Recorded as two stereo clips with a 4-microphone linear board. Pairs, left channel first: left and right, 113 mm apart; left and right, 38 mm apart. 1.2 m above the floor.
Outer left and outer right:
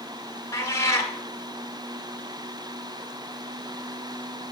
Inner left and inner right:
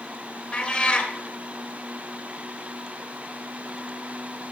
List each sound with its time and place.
0.5 s a cat meowing: 25° left (ahead or behind), 2 m